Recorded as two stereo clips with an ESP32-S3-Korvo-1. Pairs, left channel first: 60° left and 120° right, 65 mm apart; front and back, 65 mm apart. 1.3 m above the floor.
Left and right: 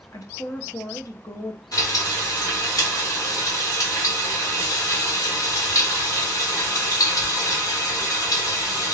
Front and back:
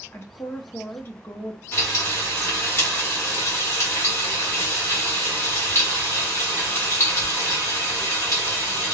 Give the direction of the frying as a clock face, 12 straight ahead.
11 o'clock.